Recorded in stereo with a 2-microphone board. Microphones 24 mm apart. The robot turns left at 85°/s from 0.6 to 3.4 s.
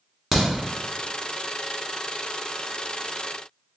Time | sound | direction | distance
0.3 | a crack | 5° left (ahead or behind) | 1.4 m